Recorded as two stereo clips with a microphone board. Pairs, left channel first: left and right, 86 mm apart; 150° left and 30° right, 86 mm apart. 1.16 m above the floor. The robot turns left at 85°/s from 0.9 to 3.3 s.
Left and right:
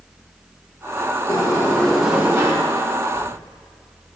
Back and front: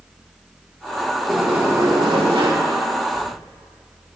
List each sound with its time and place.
1.3 s a sliding door: 55° left, 1.8 m; by 2.5 s 50° right, 1.8 m
3.1 s writing: 125° left, 3.5 m; by 3.3 s 115° left, 3.5 m